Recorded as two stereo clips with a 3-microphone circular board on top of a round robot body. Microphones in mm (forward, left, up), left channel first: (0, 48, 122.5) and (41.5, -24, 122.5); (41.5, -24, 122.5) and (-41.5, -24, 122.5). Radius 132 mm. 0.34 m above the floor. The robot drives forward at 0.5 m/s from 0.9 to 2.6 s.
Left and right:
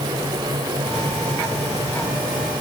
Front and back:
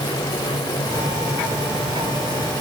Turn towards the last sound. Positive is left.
No sound to turn to.